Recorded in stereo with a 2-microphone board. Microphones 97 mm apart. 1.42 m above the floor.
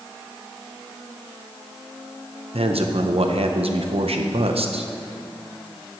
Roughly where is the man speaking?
Right.